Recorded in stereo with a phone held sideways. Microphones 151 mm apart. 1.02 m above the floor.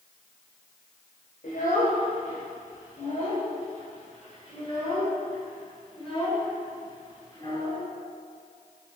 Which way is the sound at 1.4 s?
75° left (ahead or behind).